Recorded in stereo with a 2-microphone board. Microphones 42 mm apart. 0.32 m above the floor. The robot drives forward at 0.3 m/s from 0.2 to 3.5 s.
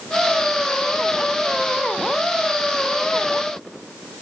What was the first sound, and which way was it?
Only background noise.